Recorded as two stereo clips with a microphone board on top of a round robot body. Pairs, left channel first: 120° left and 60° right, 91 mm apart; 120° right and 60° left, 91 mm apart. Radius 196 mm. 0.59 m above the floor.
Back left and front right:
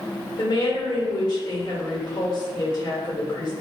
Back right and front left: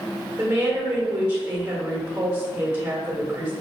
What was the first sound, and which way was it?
A woman speaking, 120° left.